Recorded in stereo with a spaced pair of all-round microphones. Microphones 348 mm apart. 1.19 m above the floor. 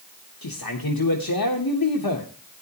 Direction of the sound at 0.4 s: 80° left.